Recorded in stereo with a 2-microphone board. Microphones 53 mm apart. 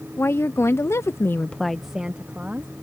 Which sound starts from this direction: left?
A woman speaking, at 0.2 s.